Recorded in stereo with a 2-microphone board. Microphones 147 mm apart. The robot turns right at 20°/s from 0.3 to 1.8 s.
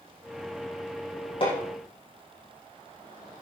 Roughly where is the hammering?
Left.